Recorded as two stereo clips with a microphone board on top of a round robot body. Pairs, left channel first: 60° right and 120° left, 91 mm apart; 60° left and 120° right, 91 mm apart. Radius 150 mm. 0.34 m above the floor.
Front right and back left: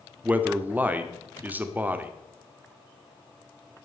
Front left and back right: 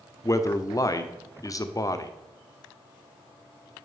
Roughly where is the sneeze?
No sneeze in this recording.